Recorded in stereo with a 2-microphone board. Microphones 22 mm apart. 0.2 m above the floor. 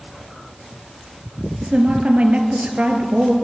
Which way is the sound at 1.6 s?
65° right (ahead or behind).